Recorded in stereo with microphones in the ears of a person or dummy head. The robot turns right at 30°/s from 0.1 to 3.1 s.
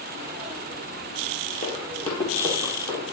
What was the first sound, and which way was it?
Running footsteps, 25° left (ahead or behind).